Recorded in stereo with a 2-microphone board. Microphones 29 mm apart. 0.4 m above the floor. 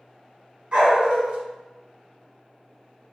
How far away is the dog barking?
About 1.1 m.